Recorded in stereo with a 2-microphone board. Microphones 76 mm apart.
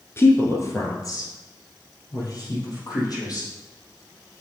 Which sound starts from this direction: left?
A woman speaking, at 0.2 s.